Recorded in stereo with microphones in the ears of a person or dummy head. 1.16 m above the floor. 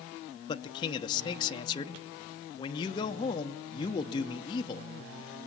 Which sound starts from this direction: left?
A man speaking, at 0.5 s.